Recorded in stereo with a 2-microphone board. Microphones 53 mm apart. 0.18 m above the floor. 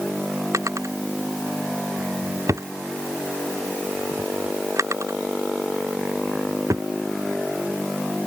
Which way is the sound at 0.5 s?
75° right (ahead or behind).